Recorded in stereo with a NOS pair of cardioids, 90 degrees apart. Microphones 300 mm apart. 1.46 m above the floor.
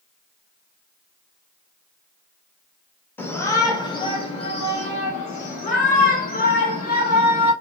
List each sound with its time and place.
3.2 s a shout: 5° left, 1.6 m; by 7.5 s 30° left, 3.5 m